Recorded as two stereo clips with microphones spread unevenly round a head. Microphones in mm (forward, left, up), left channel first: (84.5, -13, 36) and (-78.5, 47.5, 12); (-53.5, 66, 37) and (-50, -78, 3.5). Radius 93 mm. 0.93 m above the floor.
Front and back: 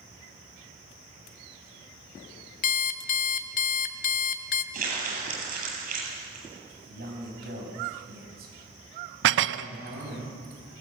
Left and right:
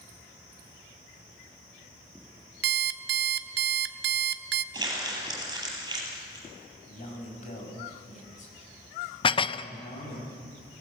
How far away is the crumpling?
About 8.5 m.